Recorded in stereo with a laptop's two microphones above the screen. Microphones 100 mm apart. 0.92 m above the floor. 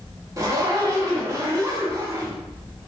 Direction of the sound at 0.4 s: 30° right (ahead or behind).